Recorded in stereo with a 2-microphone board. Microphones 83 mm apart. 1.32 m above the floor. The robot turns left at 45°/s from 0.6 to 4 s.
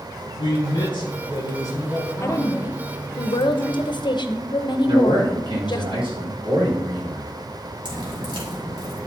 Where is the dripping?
80° right, 3.5 m.